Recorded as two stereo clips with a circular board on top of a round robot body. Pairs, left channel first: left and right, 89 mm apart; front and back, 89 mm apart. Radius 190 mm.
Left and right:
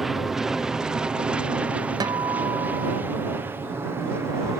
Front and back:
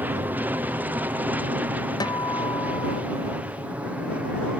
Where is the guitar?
45° right.